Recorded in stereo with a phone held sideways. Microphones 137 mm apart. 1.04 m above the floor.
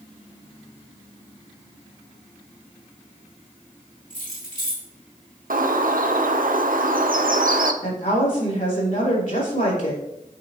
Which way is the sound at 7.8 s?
75° left (ahead or behind).